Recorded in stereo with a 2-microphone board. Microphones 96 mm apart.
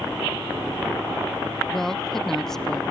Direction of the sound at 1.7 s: 5° left (ahead or behind).